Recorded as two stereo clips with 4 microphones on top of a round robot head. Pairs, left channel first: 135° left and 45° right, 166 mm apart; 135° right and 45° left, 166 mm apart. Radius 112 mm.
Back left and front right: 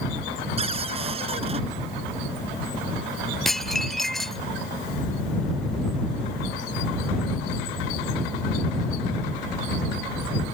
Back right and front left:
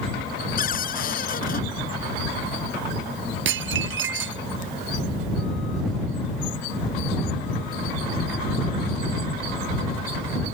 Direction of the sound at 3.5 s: 50° left.